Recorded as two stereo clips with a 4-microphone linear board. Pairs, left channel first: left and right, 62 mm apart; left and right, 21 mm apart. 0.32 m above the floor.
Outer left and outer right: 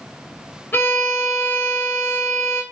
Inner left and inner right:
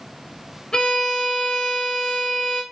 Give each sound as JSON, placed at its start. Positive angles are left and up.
{"t": 0.7, "sound": "a violin", "side_deg": 35, "distance_m": 0.5}